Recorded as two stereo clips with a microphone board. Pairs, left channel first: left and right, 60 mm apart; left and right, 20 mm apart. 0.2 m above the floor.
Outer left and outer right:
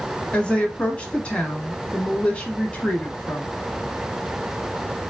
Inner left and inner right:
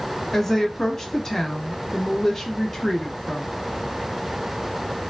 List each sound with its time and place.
0.3 s a woman speaking: 20° left (ahead or behind), 1.1 m